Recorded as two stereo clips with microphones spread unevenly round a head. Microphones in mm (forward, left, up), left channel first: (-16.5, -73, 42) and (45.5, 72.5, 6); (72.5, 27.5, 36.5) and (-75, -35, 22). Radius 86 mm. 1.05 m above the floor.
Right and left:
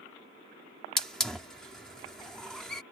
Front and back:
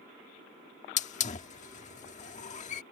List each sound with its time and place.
1.0 s a hiss: 25° right